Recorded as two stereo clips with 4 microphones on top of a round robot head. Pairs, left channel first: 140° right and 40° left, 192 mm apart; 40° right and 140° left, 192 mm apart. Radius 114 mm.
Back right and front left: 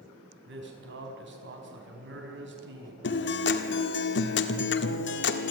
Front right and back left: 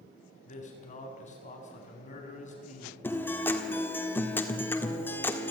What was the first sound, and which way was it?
A man speaking, 15° left.